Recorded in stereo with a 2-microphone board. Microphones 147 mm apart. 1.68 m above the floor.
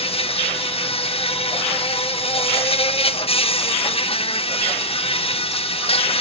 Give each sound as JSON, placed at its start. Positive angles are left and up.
{"t": 0.0, "sound": "an insect", "side_deg": 45, "distance_m": 0.8}